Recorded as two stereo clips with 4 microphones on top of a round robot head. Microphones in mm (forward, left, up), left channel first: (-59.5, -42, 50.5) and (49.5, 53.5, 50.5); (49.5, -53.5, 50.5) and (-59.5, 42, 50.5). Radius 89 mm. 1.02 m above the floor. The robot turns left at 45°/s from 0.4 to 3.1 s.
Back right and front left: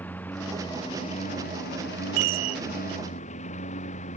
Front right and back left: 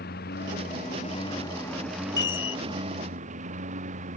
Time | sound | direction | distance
0.0 | a lawn mower | 60° right | ?
2.2 | a chime | 25° left | ?